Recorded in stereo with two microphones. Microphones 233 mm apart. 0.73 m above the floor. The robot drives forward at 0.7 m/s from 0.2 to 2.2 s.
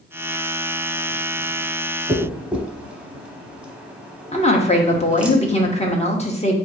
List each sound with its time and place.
2.1 s a dropped coin: 5° right (ahead or behind), 0.8 m
4.3 s a woman speaking: 30° left (ahead or behind), 0.8 m